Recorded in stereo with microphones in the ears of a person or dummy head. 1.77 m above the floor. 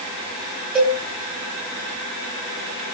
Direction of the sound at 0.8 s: 5° right (ahead or behind).